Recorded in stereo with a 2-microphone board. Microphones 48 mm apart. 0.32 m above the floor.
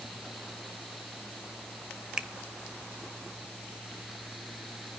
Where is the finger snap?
20° right (ahead or behind), 0.8 m.